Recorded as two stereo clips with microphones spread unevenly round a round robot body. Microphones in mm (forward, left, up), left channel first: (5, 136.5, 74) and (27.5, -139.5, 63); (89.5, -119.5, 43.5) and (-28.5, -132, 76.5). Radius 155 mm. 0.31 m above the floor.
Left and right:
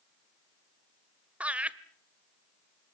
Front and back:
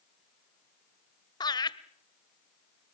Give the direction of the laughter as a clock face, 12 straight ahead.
12 o'clock.